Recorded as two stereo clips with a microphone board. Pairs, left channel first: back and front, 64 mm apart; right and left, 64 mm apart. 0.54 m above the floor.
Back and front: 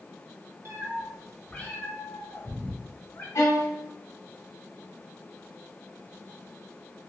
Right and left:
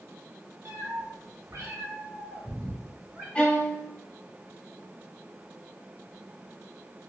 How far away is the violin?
About 1.0 m.